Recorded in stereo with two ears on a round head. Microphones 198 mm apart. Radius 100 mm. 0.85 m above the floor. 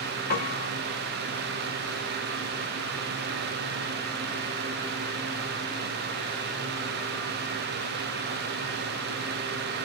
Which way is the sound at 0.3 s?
45° left (ahead or behind).